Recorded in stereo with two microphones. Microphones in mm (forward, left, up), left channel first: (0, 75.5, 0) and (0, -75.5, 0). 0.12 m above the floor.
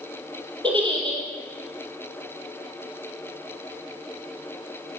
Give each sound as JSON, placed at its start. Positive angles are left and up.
{"t": 0.6, "sound": "a giggle", "side_deg": -35, "distance_m": 4.0}